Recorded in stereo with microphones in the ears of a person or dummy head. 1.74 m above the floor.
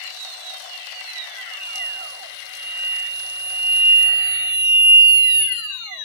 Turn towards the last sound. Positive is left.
turn(degrees=-80)